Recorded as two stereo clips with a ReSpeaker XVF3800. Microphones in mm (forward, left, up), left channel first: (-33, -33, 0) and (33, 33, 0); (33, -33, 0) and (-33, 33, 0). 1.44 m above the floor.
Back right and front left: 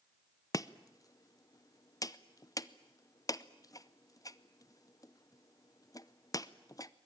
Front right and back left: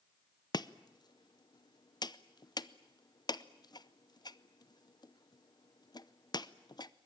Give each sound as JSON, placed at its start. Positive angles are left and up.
{"t": 0.5, "sound": "chopping", "azimuth_deg": -85, "distance_m": 0.6}